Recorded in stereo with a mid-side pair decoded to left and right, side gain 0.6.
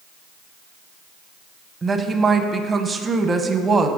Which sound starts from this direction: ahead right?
A woman speaking, at 1.8 s.